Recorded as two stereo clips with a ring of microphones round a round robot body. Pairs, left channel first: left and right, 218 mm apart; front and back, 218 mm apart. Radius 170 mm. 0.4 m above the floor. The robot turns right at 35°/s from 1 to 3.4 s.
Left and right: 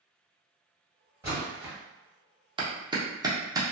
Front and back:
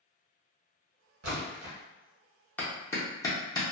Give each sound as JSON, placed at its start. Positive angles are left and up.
{"t": 1.2, "sound": "a splash", "azimuth_deg": -170, "distance_m": 1.0}
{"t": 2.6, "sound": "a clap", "azimuth_deg": -70, "distance_m": 0.9}